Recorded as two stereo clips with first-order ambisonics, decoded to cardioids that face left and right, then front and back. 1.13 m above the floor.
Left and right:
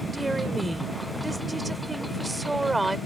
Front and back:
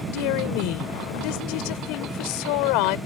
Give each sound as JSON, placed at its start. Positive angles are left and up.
{"t": 0.1, "sound": "a woman speaking", "azimuth_deg": -5}